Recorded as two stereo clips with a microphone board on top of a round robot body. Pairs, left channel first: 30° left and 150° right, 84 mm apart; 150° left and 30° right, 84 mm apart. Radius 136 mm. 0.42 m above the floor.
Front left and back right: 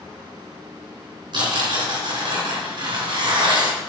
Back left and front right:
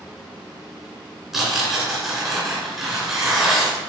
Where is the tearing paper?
115° right, 3 m.